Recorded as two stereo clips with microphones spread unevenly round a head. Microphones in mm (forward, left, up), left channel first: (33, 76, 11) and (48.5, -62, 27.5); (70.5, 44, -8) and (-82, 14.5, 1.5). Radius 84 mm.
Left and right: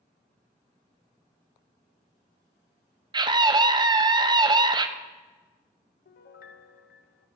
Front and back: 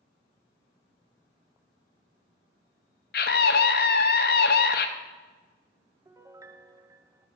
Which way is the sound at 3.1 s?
25° right.